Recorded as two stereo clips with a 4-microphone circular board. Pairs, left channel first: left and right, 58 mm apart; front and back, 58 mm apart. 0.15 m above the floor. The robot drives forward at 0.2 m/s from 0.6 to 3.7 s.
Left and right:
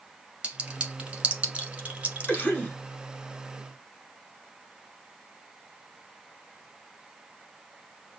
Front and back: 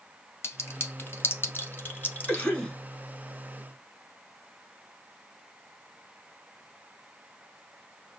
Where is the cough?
55° left, 1.1 m; by 2.7 s 65° left, 1.1 m.